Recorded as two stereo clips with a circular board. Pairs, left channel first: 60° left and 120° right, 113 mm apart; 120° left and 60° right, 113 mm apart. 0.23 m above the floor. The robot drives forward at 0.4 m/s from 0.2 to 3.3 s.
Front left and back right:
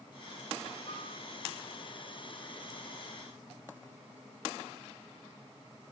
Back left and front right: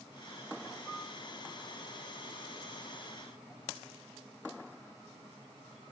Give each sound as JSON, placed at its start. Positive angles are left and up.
{"t": 0.9, "sound": "a piano", "azimuth_deg": 30, "distance_m": 5.5}